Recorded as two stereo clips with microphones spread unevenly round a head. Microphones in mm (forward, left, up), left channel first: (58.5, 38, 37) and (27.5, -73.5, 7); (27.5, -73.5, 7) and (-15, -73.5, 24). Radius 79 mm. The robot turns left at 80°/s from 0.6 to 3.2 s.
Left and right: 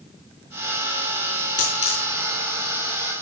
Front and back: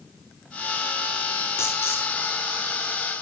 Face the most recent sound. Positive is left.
turn(degrees=-60)